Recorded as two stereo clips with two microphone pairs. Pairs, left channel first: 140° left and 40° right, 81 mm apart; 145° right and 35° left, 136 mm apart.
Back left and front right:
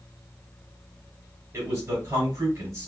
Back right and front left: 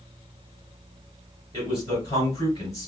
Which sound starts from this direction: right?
A man speaking, at 1.5 s.